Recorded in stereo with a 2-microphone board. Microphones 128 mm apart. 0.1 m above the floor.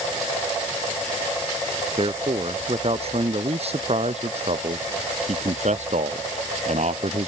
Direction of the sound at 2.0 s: 45° right (ahead or behind).